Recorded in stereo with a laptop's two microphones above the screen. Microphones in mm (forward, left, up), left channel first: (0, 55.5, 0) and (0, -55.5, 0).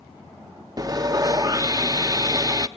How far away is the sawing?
About 0.5 m.